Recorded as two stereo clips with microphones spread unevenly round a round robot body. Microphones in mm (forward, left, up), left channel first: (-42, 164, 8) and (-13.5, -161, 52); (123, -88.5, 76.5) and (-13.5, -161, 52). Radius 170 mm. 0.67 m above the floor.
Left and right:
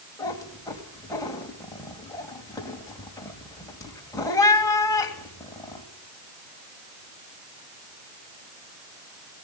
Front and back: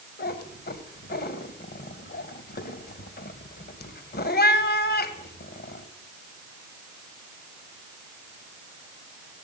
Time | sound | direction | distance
0.2 | a cat meowing | 15° left | 2.5 m